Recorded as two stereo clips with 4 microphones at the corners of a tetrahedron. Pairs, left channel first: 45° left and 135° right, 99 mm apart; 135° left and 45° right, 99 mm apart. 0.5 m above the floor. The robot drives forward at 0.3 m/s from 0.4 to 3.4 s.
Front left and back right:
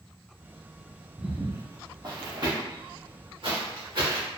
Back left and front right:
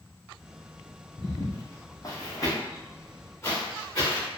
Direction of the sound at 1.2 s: 145° left.